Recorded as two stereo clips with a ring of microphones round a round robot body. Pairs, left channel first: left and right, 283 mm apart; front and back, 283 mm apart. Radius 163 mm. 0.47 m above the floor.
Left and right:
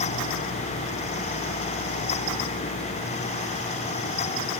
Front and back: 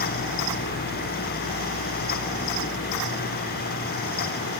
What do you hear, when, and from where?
Only background noise.